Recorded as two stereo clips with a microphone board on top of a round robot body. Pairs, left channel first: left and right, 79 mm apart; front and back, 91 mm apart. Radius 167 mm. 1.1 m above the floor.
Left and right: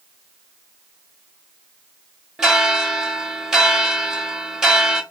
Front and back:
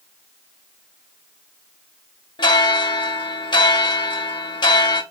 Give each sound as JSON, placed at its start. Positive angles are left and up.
{"t": 2.4, "sound": "a bell", "azimuth_deg": -10, "distance_m": 0.9}